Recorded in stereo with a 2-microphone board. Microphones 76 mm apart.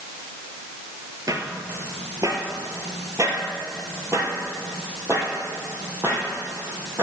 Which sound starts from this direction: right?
Footsteps, at 1.3 s.